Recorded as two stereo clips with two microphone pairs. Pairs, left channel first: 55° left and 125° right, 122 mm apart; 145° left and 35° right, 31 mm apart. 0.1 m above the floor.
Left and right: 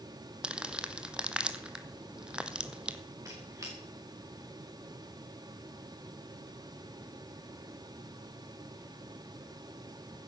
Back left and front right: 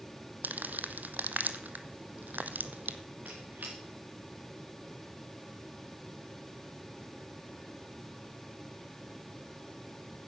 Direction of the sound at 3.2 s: 60° right.